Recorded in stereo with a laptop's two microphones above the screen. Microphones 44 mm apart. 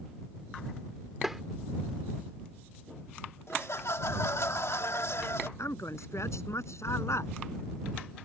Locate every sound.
1.2 s tapping: 5° right (ahead or behind)
3.5 s laughter: 75° left (ahead or behind)
5.6 s a man speaking: 80° left